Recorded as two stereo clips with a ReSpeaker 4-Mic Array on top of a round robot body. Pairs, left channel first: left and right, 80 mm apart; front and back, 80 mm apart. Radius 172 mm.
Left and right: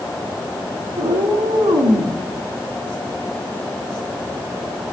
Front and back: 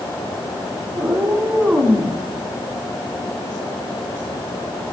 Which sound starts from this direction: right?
A cat meowing, at 1.0 s.